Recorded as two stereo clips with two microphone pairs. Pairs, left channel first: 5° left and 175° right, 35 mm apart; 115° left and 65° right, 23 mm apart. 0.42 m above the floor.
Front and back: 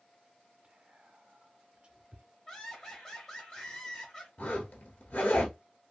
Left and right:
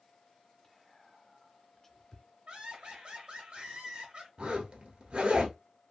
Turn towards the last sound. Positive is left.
turn(degrees=-25)